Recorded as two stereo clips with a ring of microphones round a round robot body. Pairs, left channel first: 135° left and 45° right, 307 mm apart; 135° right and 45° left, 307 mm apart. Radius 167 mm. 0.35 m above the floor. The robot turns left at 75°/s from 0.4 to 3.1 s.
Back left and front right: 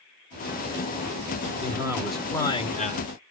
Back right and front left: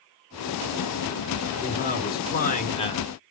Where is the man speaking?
95° right, 1.4 m; by 3.1 s 155° left, 1.4 m.